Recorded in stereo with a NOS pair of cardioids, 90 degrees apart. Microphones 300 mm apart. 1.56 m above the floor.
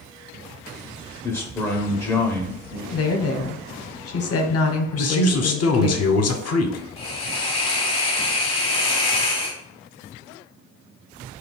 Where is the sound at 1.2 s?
10° left, 0.6 m.